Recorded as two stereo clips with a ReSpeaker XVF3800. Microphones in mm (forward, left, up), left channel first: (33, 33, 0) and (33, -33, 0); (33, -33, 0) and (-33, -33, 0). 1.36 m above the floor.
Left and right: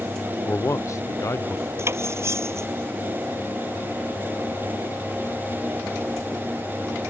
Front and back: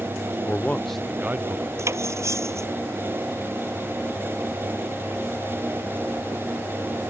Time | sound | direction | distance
0.5 | a man speaking | 45° left | ?
1.8 | cutlery clinking | 135° right | ?